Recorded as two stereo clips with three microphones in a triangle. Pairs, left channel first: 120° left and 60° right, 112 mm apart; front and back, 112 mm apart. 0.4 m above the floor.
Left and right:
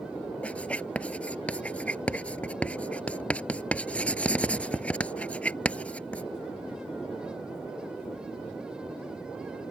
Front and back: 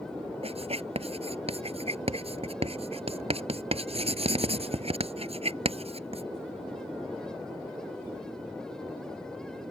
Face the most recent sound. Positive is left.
turn(degrees=-165)